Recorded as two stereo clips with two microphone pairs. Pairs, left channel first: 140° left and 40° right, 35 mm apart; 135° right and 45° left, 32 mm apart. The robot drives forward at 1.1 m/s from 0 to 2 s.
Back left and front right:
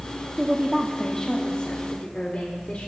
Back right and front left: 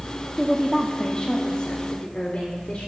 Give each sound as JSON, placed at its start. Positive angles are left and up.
{"t": 0.4, "sound": "a woman speaking", "azimuth_deg": -25, "distance_m": 0.9}